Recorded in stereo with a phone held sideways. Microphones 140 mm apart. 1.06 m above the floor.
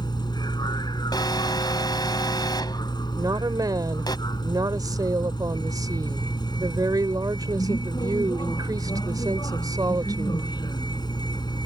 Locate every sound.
0.0 s a vehicle: 30° left (ahead or behind)
1.1 s an alarm: 30° left (ahead or behind)
3.2 s a woman speaking: 25° right (ahead or behind)